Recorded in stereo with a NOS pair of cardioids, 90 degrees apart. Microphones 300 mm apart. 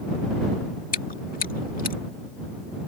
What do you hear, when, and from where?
0.9 s chewing: 30° left